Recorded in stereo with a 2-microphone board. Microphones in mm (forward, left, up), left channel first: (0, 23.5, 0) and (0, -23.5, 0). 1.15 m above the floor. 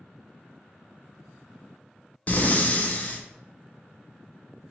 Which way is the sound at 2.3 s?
35° left (ahead or behind).